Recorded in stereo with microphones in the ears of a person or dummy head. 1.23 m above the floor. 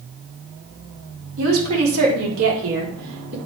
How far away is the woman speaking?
About 3 m.